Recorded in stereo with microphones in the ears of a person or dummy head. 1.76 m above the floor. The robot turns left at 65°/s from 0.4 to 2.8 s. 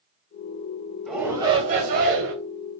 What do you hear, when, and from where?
1.1 s a shout: straight ahead, 2 m; by 2.3 s 85° right, 2 m